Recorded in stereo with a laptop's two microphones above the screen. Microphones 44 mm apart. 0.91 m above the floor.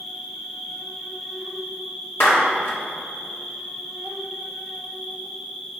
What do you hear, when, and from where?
0.0 s an insect: 5° right (ahead or behind), 1.9 m
2.2 s a clap: 70° left (ahead or behind), 1.9 m